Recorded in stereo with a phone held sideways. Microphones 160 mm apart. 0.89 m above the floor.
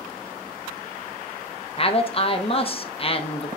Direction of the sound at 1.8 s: 35° left (ahead or behind).